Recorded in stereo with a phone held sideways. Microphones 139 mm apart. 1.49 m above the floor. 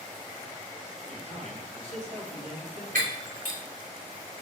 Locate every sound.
1.1 s a man speaking: 60° right (ahead or behind), 3.5 m
3.0 s breaking glass: 80° right, 3 m